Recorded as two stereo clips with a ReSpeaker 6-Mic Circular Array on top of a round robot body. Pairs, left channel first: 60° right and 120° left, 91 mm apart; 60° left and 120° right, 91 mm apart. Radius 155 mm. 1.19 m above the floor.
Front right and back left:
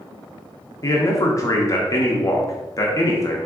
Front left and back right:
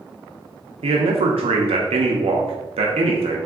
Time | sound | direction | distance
0.8 | a man speaking | 115° right | 0.5 m